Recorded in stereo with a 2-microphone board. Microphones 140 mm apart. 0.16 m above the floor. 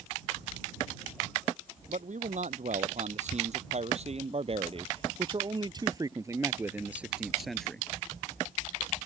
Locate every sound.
1.9 s a man speaking: 65° right (ahead or behind); by 7.9 s 5° left (ahead or behind)